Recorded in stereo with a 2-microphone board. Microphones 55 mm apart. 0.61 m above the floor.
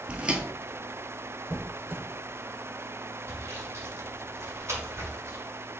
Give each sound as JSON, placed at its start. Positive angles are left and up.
{"t": 0.1, "sound": "footsteps", "side_deg": -25, "distance_m": 0.6}
{"t": 1.5, "sound": "a squeak", "side_deg": -45, "distance_m": 0.6}
{"t": 3.3, "sound": "sawing", "side_deg": -60, "distance_m": 1.9}